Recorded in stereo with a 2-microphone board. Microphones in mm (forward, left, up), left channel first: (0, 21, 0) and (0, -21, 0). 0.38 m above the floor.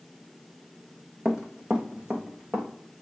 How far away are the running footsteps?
About 1.4 m.